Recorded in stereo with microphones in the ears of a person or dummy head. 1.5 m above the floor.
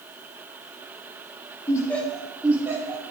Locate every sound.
1.7 s laughter: 15° left (ahead or behind), 1.1 m; by 3.0 s 25° right (ahead or behind), 1.8 m